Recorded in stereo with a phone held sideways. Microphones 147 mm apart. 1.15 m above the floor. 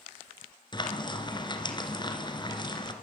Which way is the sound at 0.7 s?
30° left (ahead or behind).